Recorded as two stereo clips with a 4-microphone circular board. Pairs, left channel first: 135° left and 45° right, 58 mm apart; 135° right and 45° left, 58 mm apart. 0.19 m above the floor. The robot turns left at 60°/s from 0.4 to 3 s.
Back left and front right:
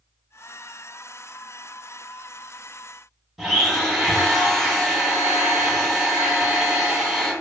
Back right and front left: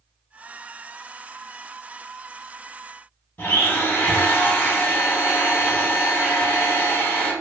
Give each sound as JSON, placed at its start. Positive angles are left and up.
{"t": 3.4, "sound": "a blender", "azimuth_deg": -130, "distance_m": 0.7}